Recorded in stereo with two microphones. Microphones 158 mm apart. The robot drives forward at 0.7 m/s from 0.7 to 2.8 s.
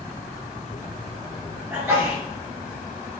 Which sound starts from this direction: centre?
A sneeze, at 1.7 s.